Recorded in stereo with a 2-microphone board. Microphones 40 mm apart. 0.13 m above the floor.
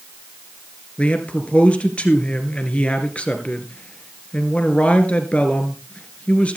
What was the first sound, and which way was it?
A man speaking, 30° left (ahead or behind).